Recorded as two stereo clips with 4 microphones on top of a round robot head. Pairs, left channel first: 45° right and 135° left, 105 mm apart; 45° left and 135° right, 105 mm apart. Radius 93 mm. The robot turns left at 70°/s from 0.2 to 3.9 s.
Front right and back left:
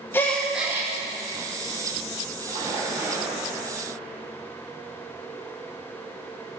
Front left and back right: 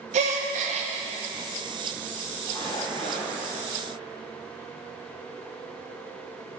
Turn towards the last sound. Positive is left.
turn(degrees=5)